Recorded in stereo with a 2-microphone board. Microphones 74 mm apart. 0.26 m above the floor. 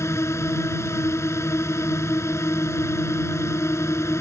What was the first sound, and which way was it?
A drone, 40° left (ahead or behind).